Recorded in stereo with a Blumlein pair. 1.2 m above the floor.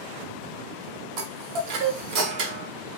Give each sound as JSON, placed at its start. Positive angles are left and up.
{"t": 1.2, "sound": "a chime", "azimuth_deg": -40, "distance_m": 0.8}